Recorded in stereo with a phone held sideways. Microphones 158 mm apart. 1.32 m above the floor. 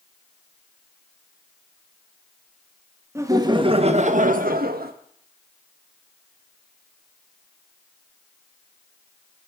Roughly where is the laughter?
Centre.